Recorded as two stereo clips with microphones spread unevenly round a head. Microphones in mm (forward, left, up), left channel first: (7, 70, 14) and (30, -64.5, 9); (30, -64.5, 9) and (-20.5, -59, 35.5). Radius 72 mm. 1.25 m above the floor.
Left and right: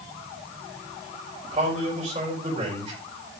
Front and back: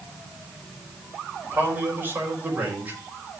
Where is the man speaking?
135° right, 6 m.